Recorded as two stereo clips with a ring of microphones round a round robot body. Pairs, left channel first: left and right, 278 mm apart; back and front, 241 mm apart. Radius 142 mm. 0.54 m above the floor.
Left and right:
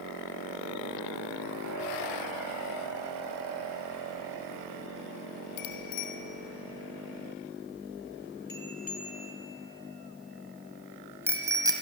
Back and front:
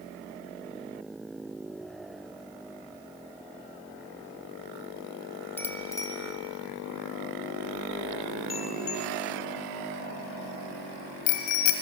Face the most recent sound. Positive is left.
turn(degrees=-170)